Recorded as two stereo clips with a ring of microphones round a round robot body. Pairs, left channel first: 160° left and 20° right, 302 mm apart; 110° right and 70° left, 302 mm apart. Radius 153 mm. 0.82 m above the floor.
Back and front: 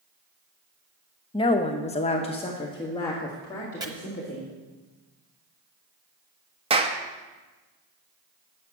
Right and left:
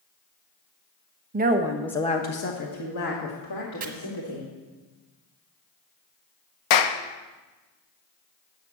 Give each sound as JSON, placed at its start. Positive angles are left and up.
{"t": 1.3, "sound": "a woman speaking", "azimuth_deg": 95, "distance_m": 0.9}
{"t": 3.8, "sound": "chopping", "azimuth_deg": 45, "distance_m": 1.1}
{"t": 6.7, "sound": "a clap", "azimuth_deg": -95, "distance_m": 0.7}